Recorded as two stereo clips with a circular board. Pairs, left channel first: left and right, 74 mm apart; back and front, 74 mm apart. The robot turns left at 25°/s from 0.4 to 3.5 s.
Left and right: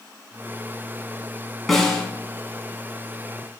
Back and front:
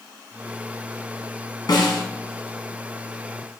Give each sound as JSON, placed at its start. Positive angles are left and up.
{"t": 1.7, "sound": "a snare drum", "azimuth_deg": 180, "distance_m": 2.0}